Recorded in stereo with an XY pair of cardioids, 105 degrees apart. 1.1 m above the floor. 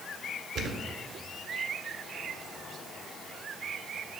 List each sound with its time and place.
0.6 s a thud: 70° right, 1.9 m